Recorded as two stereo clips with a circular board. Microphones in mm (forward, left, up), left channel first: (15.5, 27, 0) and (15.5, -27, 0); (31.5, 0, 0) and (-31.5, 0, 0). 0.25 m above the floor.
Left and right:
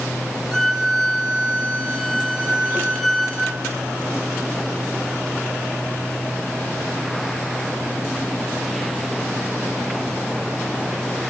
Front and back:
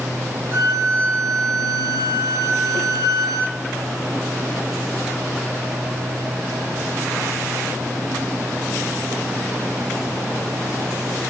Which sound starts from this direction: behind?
A violin, at 0.5 s.